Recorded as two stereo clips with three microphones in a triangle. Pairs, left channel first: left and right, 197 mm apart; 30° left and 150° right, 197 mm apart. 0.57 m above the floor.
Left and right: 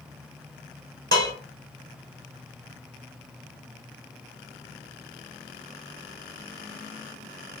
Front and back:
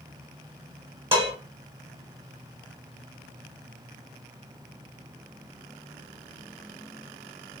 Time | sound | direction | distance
1.1 | dishes clattering | 85° right | 1.8 m